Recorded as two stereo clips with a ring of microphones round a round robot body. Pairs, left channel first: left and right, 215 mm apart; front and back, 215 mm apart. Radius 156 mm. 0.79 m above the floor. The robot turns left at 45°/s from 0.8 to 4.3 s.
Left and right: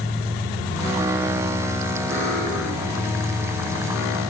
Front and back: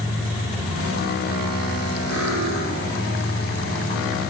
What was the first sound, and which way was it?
Cutlery clinking, 125° right.